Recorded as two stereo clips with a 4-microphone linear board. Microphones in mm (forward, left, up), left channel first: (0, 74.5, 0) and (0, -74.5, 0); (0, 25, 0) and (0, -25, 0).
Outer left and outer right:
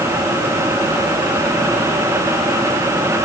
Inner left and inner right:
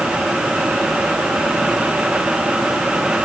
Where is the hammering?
I don't hear hammering.